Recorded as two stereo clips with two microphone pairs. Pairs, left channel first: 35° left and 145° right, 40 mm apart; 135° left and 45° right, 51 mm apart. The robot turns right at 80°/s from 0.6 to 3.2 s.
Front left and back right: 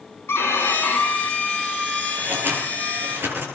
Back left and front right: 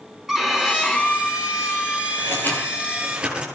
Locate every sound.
0.3 s a violin: 35° left, 4.5 m; by 3.2 s 115° right, 4.5 m
2.2 s scissors: 165° left, 8.5 m; by 3.5 s 115° right, 8.5 m